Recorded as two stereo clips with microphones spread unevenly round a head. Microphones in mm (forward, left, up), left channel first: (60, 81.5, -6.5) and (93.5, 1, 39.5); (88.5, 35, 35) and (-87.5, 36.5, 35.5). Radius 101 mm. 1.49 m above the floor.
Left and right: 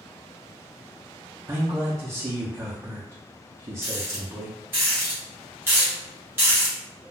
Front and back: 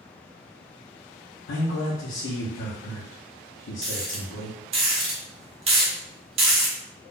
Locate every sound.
1.5 s a man speaking: 5° left, 0.7 m
3.8 s a rattle: 120° right, 0.6 m